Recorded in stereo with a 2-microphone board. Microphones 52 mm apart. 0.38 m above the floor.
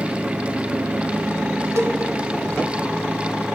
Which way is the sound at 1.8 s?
75° right (ahead or behind).